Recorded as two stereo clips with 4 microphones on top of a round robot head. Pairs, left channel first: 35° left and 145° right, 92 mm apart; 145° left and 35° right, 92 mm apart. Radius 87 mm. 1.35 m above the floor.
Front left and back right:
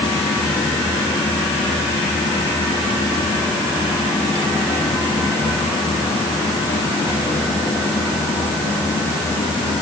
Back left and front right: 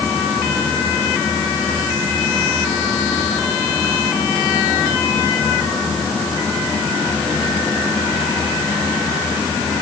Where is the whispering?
I don't hear whispering.